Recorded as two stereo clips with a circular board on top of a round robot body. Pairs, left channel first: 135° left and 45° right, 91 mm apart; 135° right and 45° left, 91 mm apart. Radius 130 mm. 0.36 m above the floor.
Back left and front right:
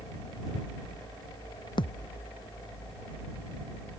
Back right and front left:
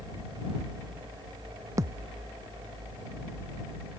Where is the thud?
100° left.